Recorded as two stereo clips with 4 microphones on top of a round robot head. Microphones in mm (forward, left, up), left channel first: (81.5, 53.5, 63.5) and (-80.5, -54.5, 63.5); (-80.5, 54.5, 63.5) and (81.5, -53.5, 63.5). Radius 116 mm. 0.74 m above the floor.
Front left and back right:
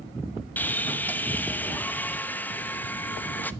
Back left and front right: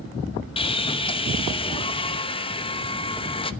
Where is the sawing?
110° left, 1.0 m.